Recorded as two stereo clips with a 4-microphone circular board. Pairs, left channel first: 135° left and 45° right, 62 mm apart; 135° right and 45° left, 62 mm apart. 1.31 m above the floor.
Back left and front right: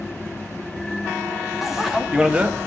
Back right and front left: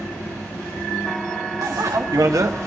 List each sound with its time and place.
1.6 s a bicycle bell: 40° left, 2 m; by 2.7 s 10° left, 1.0 m